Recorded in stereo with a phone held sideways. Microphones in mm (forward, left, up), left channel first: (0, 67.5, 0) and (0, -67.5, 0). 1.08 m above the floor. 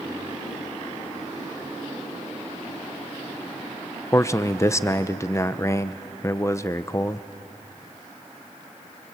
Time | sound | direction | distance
4.1 | a man speaking | 20° left (ahead or behind) | 0.7 m